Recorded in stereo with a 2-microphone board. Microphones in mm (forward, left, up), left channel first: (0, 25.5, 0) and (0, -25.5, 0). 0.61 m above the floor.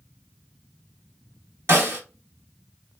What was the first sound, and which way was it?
A snare drum, 55° right (ahead or behind).